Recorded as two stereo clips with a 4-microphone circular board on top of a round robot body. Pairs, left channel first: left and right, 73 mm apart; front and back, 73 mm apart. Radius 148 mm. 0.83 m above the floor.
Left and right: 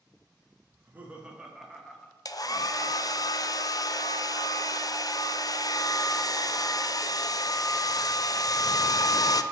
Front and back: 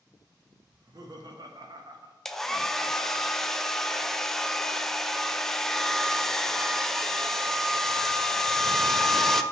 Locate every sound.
0.7 s laughter: 150° right, 1.7 m; by 3.2 s 135° left, 1.9 m
2.2 s a hair dryer: 85° left, 0.7 m